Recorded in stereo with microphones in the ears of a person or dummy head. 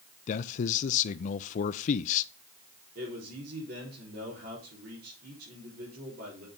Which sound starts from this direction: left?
A man speaking, at 0.3 s.